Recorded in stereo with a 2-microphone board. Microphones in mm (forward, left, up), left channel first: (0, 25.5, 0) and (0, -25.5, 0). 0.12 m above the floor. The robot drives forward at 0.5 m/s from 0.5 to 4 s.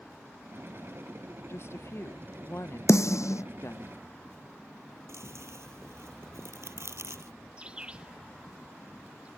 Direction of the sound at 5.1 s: 65° right (ahead or behind).